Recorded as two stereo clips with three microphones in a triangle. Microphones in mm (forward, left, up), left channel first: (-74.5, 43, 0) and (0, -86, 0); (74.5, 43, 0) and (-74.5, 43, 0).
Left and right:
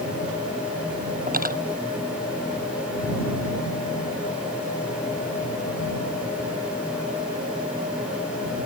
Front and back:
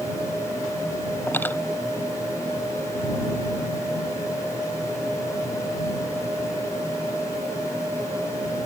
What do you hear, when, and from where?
1.3 s cutlery clinking: 75° right